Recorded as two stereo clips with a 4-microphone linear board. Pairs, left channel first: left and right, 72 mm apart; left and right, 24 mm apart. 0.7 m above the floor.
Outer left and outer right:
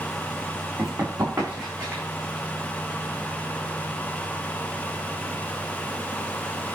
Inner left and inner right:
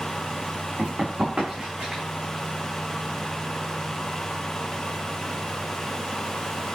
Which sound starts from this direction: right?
Running footsteps, at 0.8 s.